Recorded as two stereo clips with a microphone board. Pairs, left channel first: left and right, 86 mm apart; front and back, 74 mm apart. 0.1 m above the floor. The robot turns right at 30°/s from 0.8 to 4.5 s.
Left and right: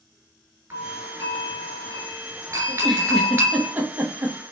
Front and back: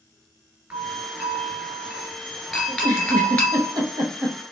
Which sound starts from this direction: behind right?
A doorbell, at 0.7 s.